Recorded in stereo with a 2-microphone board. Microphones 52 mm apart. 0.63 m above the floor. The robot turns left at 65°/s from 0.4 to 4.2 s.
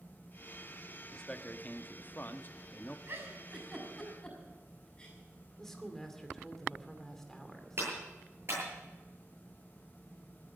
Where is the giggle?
50° right (ahead or behind), 5.5 m; by 5.2 s 25° left (ahead or behind), 5.5 m.